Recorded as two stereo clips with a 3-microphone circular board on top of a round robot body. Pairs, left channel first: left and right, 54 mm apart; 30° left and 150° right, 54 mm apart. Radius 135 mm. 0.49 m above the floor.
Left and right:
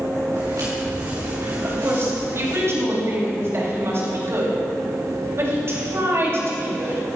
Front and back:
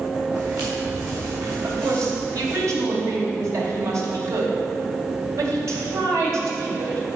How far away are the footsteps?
About 4 m.